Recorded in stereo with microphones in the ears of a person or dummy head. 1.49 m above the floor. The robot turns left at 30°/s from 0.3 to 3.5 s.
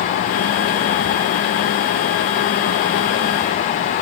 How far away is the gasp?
I don't hear a gasp.